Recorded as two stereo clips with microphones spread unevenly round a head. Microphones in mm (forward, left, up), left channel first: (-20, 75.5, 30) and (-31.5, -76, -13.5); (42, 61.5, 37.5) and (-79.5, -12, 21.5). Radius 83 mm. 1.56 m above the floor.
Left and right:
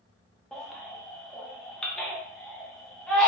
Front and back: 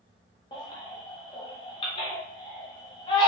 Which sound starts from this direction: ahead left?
A baby crying, at 0.5 s.